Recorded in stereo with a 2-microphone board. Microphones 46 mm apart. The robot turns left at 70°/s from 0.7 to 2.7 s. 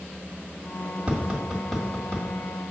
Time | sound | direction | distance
1.1 | tapping | 20° right (ahead or behind) | 1.6 m